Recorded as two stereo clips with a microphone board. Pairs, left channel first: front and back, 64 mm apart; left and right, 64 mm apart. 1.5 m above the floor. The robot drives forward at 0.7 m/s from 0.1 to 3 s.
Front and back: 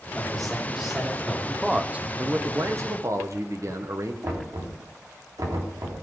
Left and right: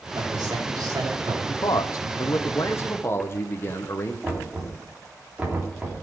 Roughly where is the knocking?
Behind.